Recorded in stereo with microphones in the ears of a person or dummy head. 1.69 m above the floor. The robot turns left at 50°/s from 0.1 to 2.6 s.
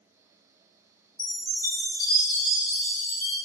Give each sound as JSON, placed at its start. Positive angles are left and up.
{"t": 1.2, "sound": "a chime", "azimuth_deg": -175, "distance_m": 2.0}